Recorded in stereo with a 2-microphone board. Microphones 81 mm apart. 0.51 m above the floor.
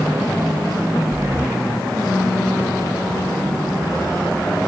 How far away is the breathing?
About 1.5 m.